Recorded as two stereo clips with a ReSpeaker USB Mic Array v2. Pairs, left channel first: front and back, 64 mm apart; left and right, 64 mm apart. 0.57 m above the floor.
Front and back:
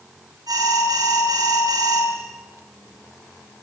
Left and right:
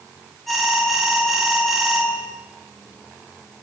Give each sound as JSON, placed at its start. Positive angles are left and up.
{"t": 0.5, "sound": "an alarm", "azimuth_deg": 180, "distance_m": 9.0}